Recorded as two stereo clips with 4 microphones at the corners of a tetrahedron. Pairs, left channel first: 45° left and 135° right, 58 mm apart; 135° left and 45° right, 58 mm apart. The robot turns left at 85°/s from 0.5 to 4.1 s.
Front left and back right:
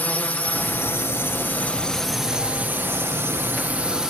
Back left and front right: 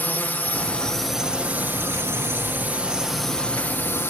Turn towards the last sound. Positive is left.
turn(degrees=150)